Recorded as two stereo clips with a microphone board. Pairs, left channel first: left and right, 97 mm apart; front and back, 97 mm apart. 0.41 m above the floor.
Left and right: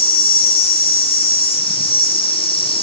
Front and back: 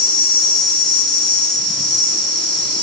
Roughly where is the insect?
Left.